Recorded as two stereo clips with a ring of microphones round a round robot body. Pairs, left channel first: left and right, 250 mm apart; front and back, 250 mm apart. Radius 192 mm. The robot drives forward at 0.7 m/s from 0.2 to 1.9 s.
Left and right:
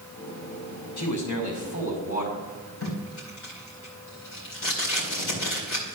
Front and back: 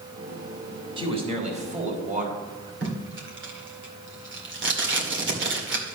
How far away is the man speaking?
About 3 m.